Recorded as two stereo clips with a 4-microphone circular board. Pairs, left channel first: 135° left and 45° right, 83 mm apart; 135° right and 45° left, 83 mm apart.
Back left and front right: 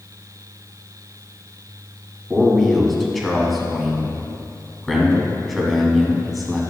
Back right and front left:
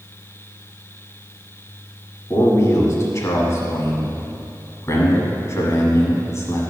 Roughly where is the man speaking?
Behind right.